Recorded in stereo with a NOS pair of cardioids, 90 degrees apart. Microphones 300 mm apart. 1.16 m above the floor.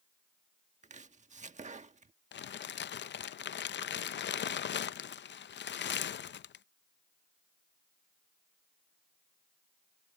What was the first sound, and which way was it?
Chopping, 25° right.